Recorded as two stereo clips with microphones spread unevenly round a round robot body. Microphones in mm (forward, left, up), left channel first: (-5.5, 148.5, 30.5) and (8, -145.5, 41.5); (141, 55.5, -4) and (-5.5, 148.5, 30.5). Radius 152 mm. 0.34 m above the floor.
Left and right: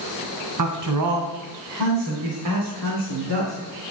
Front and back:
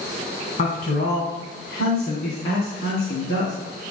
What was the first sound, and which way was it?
A man speaking, 80° right.